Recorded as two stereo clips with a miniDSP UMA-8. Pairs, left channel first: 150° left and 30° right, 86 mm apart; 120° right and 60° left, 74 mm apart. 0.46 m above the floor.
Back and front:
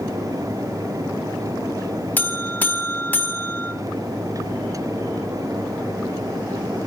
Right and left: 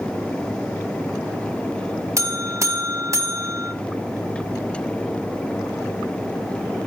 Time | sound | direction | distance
2.2 | a buzzer | 90° left | 0.6 m